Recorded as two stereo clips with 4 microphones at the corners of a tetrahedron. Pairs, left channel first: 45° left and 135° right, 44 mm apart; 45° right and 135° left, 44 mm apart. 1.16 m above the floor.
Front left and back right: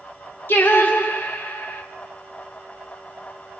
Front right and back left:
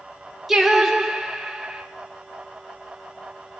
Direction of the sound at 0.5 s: 55° left.